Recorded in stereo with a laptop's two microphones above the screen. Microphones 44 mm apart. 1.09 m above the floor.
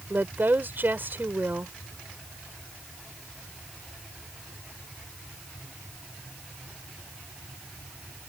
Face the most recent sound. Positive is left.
turn(degrees=-45)  # may be behind; listen again after turning